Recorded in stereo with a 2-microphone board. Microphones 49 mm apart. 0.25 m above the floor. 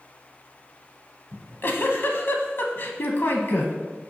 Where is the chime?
No chime in this recording.